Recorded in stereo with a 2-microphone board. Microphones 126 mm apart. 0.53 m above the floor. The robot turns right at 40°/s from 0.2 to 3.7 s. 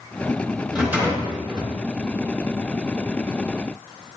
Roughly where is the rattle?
Behind.